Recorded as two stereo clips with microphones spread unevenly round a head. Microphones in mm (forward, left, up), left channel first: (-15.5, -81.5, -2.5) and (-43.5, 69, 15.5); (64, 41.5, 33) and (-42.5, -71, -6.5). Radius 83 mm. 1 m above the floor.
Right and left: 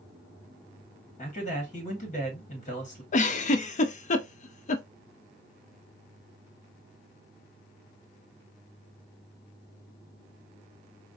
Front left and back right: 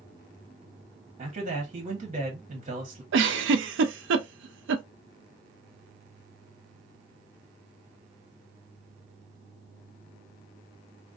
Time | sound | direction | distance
1.2 | a man speaking | 105° right | 1.3 m
3.1 | a giggle | 125° right | 0.5 m